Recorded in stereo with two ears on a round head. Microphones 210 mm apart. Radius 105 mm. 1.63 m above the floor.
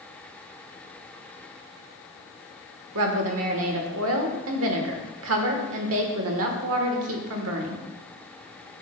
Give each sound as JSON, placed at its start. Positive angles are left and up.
{"t": 3.0, "sound": "a woman speaking", "side_deg": -65, "distance_m": 1.2}